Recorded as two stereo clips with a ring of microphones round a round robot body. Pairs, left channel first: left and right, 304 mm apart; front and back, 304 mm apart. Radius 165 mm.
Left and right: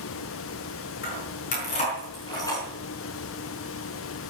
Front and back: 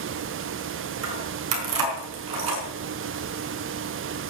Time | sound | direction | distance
1.0 | keys jangling | 150° left | 5.5 m